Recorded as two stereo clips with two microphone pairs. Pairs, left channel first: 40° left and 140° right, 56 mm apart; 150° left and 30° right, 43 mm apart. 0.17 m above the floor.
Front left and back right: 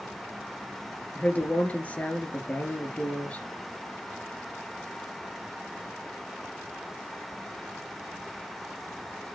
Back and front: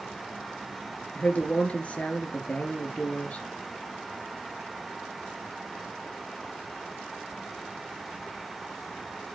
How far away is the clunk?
I don't hear a clunk.